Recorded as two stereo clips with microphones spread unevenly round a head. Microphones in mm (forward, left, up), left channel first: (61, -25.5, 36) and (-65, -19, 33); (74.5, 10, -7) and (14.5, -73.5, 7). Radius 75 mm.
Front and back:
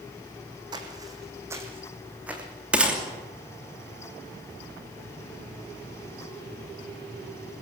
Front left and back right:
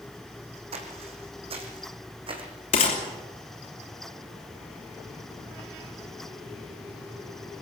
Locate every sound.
0.7 s footsteps: 125° right, 3 m; by 2.4 s 100° right, 3.5 m
2.7 s a gunshot: 95° left, 3 m